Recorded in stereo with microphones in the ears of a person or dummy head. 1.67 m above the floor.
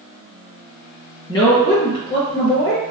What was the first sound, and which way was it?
A woman speaking, 30° left (ahead or behind).